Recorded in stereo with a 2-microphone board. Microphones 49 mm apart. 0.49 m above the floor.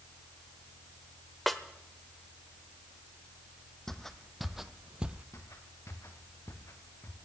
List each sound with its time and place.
1.5 s a snare drum: 5° left (ahead or behind), 1.0 m
3.9 s footsteps: 10° left (ahead or behind), 1.1 m; by 5.2 s 30° right (ahead or behind), 0.7 m
5.3 s footsteps: 80° left, 3 m; by 7.2 s 60° left (ahead or behind), 3 m